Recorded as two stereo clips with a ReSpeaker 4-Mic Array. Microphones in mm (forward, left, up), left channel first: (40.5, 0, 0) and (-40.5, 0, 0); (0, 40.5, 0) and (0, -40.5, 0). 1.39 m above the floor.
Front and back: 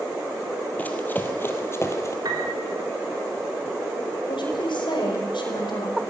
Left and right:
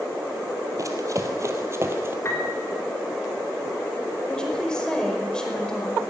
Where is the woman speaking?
10° left, 5 m.